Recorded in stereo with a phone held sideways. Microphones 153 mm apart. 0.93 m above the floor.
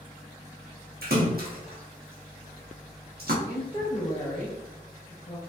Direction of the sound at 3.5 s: 25° left (ahead or behind).